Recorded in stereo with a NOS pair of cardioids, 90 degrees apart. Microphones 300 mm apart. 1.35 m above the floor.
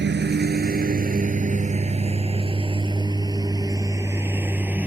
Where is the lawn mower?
40° right; by 4.9 s 5° right.